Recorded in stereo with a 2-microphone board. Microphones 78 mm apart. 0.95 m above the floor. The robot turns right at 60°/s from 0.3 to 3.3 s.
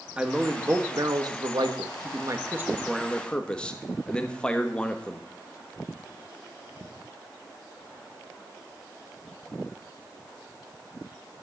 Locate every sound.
0.2 s a man speaking: 165° right, 1.3 m; by 5.2 s 15° left, 1.3 m